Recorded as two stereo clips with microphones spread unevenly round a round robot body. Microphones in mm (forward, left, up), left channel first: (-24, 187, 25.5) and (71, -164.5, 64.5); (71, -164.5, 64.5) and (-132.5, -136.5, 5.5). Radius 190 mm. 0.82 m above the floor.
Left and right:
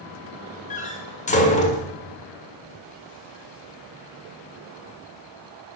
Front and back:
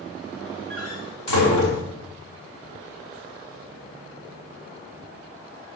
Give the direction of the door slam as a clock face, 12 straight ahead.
11 o'clock.